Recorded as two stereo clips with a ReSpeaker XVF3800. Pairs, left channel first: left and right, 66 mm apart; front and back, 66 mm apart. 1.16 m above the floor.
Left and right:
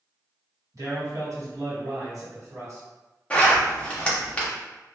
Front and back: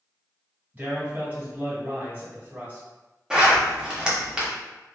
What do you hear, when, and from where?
0.7 s a man speaking: 120° right, 1.4 m
3.3 s a zipper: 120° left, 0.7 m